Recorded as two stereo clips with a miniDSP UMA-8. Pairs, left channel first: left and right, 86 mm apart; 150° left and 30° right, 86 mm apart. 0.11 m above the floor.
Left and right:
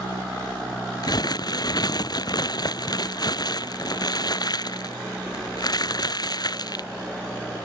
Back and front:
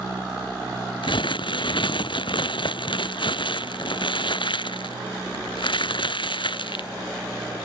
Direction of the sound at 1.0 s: 130° left.